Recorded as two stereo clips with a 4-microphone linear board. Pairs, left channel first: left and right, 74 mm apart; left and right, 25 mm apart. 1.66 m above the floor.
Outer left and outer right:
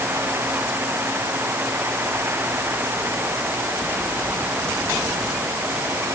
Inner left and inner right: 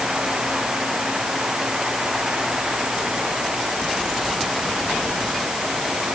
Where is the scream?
I don't hear a scream.